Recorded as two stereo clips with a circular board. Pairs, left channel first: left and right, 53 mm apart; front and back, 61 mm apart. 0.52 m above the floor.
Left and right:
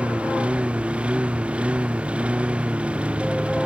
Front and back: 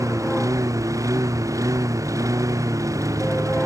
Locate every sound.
0.0 s a lawn mower: 155° right